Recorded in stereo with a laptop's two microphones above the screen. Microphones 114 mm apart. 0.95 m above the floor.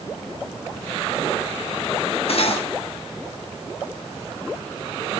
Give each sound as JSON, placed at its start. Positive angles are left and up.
{"t": 2.3, "sound": "cutlery clinking", "side_deg": 60, "distance_m": 1.0}